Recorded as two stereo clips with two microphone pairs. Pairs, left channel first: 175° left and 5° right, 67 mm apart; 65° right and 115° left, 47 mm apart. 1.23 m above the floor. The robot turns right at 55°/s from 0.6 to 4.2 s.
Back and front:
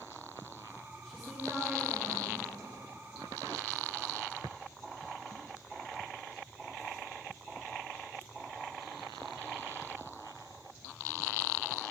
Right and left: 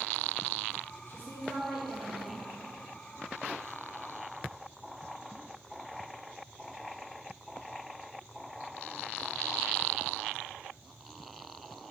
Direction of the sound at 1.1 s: 95° right.